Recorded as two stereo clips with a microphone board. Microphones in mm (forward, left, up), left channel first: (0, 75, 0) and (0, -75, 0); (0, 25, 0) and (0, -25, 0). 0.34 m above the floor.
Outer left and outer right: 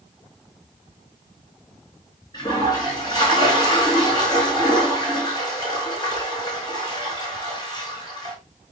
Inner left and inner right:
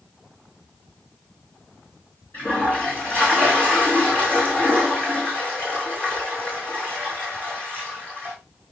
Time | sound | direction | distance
2.3 | a toilet flushing | 25° left (ahead or behind) | 4.5 m